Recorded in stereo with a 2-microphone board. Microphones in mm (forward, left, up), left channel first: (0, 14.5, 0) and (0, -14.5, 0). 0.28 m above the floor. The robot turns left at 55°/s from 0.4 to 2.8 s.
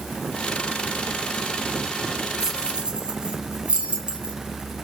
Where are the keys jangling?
15° right (ahead or behind), 2 m; by 4.3 s 35° right (ahead or behind), 2 m.